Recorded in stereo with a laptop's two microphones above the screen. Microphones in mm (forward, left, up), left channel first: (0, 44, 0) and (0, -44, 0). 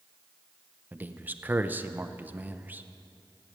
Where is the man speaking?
20° right (ahead or behind), 0.6 m.